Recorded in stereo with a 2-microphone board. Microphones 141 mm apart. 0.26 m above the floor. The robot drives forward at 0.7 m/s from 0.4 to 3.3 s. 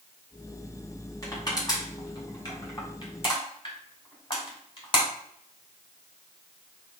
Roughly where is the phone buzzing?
No phone buzzing in this recording.